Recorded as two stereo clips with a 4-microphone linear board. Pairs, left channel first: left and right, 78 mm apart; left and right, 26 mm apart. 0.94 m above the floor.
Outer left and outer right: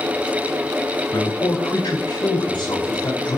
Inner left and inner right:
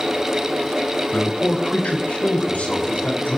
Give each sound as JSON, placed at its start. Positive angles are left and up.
{"t": 1.1, "sound": "a man speaking", "side_deg": 75, "distance_m": 4.0}